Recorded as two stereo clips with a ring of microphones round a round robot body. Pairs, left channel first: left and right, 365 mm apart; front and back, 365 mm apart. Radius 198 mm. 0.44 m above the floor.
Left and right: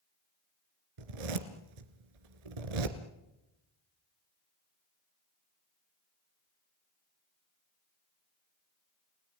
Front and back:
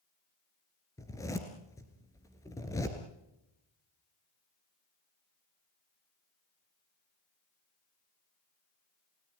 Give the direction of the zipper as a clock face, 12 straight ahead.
3 o'clock.